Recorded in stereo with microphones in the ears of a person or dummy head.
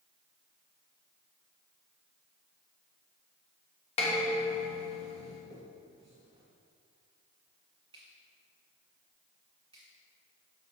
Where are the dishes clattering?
30° left (ahead or behind), 1.1 m.